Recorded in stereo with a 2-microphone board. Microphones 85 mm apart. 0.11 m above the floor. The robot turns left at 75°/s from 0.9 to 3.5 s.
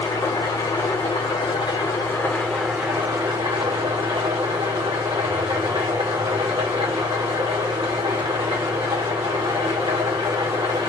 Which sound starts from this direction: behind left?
An engine running, at 0.0 s.